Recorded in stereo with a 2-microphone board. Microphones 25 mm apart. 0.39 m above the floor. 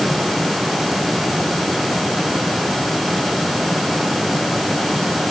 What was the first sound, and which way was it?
Only background noise.